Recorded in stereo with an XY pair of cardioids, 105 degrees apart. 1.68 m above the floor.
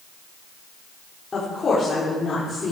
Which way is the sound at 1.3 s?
35° left.